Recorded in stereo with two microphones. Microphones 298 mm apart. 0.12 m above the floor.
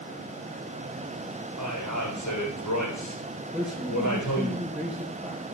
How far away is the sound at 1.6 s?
About 6.5 m.